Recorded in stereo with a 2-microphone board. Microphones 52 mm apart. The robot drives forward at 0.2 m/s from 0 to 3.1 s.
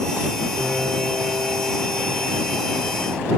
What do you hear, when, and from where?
0.6 s a piano: 5° right (ahead or behind), 9.5 m